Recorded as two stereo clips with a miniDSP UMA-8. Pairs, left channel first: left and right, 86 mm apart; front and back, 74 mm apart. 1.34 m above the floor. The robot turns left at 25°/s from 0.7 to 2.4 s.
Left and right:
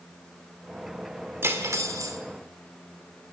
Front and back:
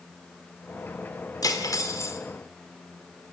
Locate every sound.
1.4 s cutlery clinking: 30° right, 2 m; by 2.2 s 50° right, 2 m